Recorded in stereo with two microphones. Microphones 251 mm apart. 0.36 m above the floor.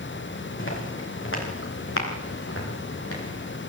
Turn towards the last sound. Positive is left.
turn(degrees=70)  # may be behind; listen again after turning